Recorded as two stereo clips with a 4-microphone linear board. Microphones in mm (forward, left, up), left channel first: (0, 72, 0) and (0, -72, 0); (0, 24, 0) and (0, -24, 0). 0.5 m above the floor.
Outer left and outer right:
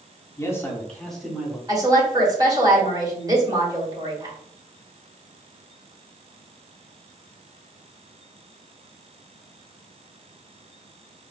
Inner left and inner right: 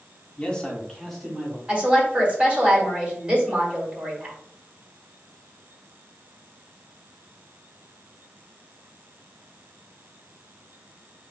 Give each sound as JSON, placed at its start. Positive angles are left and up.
{"t": 0.4, "sound": "a man speaking", "side_deg": 20, "distance_m": 1.2}
{"t": 1.7, "sound": "a woman speaking", "side_deg": -25, "distance_m": 1.8}